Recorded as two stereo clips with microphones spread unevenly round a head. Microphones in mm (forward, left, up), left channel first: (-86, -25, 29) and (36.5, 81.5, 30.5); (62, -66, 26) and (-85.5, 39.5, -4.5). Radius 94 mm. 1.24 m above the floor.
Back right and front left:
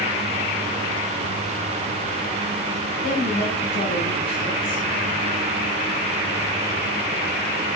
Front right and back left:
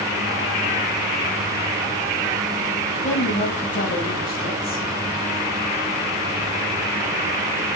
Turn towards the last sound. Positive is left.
turn(degrees=-80)